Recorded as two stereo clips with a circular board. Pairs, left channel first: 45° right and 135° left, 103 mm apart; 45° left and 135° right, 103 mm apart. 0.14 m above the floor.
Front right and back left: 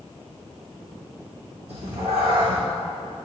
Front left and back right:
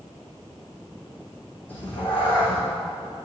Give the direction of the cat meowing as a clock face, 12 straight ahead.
8 o'clock.